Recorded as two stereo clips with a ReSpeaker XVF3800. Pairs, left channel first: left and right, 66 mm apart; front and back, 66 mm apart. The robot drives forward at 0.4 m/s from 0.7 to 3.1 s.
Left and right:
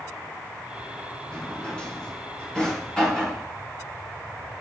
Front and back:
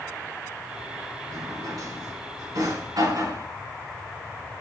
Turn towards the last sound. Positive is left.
turn(degrees=165)